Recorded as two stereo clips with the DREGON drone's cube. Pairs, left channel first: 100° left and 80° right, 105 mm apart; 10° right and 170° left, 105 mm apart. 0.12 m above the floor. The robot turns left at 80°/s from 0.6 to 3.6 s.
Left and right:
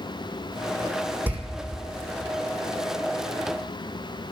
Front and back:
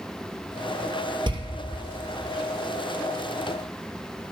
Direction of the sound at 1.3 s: 150° right.